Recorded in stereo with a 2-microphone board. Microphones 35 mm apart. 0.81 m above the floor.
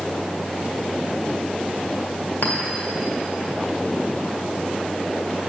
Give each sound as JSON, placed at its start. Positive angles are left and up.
{"t": 2.4, "sound": "a clink", "side_deg": 70, "distance_m": 1.8}